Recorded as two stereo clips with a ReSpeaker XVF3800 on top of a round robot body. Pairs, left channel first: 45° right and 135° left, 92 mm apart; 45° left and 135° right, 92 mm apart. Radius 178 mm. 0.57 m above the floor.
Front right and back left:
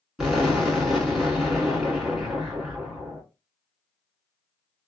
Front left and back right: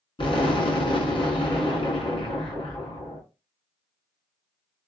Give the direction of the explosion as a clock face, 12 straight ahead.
10 o'clock.